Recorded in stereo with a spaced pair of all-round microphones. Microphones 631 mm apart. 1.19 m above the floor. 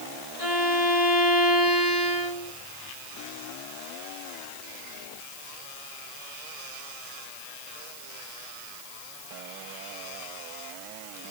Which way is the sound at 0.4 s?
60° left (ahead or behind).